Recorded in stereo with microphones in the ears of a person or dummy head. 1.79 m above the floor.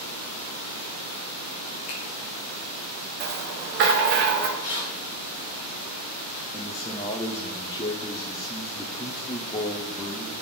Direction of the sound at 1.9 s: 35° left (ahead or behind).